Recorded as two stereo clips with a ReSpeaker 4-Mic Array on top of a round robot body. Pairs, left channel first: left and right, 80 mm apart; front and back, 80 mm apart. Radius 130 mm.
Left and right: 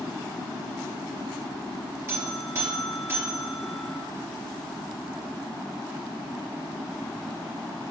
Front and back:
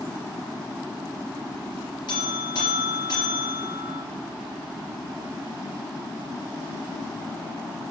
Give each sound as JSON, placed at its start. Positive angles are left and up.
{"t": 2.1, "sound": "a buzzer", "azimuth_deg": -30, "distance_m": 2.5}